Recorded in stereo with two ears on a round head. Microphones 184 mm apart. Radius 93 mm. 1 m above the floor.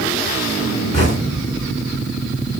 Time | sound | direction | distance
0.9 | knocking | 30° left (ahead or behind) | 4.5 m